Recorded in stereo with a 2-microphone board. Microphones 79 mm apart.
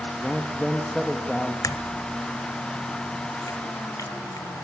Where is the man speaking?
5° left (ahead or behind), 1.8 m.